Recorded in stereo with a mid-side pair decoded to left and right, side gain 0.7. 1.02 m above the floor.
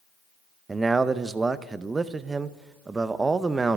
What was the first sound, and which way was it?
A man speaking, 20° right.